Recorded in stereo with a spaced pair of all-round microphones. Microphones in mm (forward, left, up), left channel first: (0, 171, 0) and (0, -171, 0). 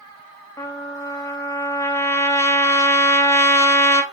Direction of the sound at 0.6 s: 10° left (ahead or behind).